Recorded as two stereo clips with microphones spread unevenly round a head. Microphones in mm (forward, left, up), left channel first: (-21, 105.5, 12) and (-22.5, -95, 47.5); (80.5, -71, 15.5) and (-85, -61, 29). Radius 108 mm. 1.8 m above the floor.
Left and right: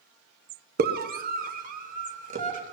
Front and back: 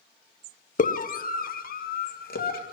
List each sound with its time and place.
0.8 s a scream: 45° right, 1.3 m; by 2.7 s 35° right, 3 m